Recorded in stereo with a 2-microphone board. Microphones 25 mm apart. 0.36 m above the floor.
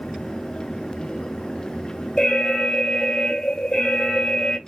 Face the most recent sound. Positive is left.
turn(degrees=35)  # may be behind; listen again after turning